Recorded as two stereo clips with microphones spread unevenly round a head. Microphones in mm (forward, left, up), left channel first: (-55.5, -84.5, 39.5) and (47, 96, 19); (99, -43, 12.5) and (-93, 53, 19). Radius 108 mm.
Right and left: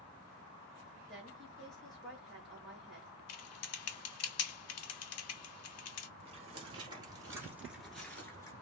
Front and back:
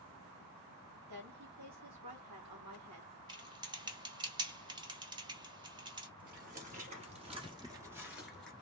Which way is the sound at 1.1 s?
150° left.